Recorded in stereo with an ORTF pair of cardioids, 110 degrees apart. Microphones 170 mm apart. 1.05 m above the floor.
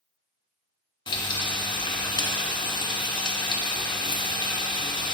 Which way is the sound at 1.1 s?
25° left.